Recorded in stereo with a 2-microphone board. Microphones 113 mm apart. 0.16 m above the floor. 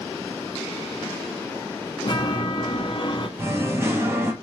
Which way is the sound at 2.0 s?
45° left (ahead or behind).